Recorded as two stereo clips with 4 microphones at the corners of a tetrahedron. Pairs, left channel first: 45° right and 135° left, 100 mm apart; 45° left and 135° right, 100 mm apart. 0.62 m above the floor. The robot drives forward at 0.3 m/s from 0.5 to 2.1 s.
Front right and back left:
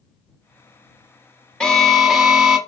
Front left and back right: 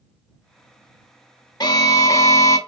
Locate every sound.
1.6 s an alarm: 30° left, 0.6 m; by 2.6 s 50° left, 0.6 m